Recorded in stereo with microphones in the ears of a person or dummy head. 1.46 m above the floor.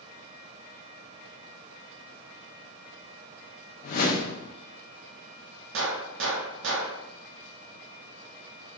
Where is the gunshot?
65° right (ahead or behind), 0.8 m.